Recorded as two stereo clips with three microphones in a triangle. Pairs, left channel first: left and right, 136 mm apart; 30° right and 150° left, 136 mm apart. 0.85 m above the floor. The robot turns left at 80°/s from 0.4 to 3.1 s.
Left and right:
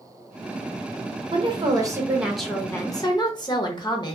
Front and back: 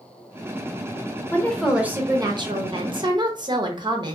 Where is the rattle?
I don't hear a rattle.